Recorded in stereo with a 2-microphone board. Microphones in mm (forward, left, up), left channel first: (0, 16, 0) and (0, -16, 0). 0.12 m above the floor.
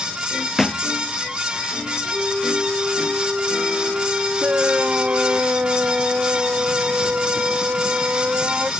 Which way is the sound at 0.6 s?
10° left (ahead or behind).